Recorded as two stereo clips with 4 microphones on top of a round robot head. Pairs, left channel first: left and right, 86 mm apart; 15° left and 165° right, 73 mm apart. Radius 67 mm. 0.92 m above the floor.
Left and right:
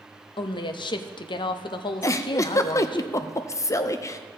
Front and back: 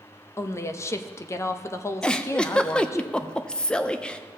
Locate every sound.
0.4 s a woman speaking: 65° left, 0.7 m
2.0 s a giggle: 85° left, 0.6 m